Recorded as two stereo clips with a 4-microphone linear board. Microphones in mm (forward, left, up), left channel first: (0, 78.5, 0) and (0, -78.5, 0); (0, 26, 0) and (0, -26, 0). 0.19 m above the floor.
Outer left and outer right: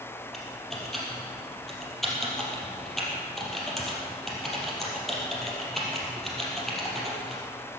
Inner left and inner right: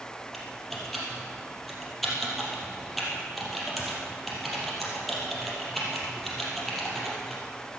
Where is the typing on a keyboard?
Centre (ahead or behind), 4 m.